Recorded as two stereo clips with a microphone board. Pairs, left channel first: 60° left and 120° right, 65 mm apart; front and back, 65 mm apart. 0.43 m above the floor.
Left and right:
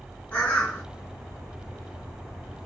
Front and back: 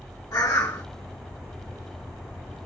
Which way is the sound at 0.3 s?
10° right.